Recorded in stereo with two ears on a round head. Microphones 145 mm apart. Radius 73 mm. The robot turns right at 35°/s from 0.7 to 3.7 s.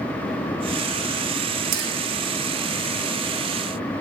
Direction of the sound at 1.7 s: 65° right (ahead or behind).